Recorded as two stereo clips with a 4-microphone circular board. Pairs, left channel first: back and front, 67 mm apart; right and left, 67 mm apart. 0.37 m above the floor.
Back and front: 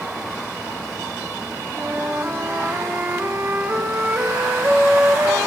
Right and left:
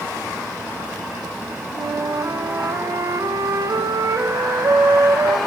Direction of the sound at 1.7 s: 60° left.